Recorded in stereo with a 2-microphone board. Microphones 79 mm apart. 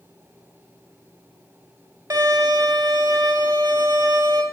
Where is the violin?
55° right (ahead or behind), 2 m.